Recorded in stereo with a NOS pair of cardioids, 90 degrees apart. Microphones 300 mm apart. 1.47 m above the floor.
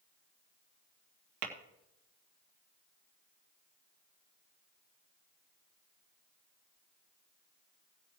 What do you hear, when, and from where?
1.4 s tapping: 70° right, 2 m